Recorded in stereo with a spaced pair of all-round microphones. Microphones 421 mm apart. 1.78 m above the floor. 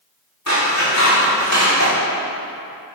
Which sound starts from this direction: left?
Scissors, at 0.5 s.